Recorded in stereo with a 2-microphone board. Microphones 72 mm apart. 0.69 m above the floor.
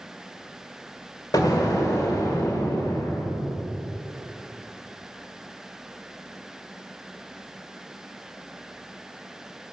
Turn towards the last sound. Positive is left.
turn(degrees=65)  # may be behind; listen again after turning